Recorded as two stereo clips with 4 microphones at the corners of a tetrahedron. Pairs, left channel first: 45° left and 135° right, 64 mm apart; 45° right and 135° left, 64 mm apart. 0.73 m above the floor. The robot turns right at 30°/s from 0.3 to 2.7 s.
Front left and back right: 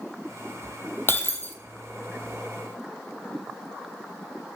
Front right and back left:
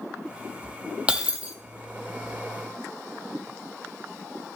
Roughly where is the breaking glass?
Ahead left.